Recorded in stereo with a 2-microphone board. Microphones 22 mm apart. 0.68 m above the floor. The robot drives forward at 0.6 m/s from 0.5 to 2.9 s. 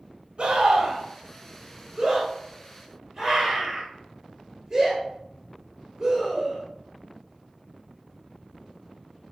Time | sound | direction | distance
0.4 | a scream | 50° right (ahead or behind) | 0.9 m